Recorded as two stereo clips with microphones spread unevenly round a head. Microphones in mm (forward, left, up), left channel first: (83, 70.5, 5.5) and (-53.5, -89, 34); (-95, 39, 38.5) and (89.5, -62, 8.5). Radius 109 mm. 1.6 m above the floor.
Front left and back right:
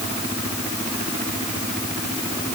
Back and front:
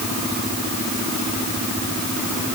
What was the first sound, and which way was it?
Only background noise.